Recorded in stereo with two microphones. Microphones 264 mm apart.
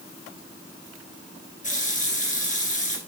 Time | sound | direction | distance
1.6 | a running tap | 30° left (ahead or behind) | 2 m